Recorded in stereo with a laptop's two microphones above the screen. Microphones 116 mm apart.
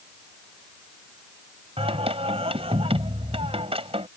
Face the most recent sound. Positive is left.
turn(degrees=-60)  # may be behind; listen again after turning